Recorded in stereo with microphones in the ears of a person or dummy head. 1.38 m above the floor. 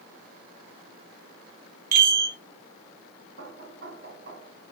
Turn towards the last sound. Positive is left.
turn(degrees=-55)  # may be behind; listen again after turning